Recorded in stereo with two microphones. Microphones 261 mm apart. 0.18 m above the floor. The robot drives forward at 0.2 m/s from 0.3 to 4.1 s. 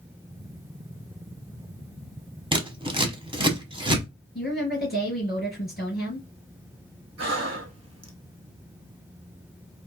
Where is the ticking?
I don't hear ticking.